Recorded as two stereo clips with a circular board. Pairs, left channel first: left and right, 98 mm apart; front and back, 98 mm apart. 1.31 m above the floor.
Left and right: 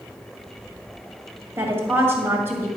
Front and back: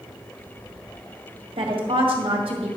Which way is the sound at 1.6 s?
155° right.